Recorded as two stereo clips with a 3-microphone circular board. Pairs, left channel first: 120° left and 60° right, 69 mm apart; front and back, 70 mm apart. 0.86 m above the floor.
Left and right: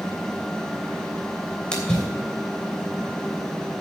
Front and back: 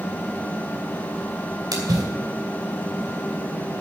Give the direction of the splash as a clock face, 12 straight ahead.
5 o'clock.